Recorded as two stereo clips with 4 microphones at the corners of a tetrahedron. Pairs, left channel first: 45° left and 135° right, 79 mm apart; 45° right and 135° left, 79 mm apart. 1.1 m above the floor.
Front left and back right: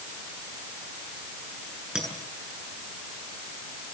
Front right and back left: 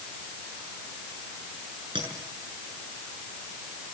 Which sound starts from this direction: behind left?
A clink, at 1.9 s.